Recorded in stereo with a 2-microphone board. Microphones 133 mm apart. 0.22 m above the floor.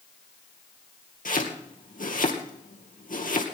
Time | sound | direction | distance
1.2 | chopping | 75° left (ahead or behind) | 2.5 m